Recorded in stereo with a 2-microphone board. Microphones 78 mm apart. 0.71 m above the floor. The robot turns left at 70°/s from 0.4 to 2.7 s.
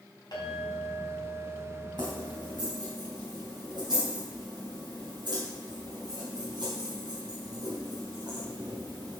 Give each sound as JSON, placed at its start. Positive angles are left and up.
{"t": 0.3, "sound": "a clink", "azimuth_deg": 65, "distance_m": 3.5}
{"t": 2.0, "sound": "keys jangling", "side_deg": -60, "distance_m": 3.5}